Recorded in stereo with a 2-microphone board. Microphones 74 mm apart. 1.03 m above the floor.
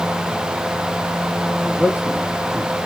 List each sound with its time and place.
1.6 s a man speaking: 15° right (ahead or behind), 1.8 m; by 2.8 s 20° right (ahead or behind), 2.5 m